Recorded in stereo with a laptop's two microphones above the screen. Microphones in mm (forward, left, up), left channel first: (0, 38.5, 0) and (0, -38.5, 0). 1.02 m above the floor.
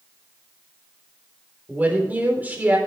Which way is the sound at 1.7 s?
25° right (ahead or behind).